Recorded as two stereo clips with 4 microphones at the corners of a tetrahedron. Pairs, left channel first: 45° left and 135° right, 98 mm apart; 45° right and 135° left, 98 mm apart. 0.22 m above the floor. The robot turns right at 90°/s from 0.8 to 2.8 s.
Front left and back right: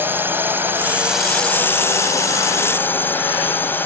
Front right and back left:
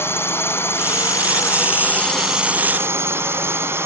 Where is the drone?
85° right; by 3.9 s 95° left.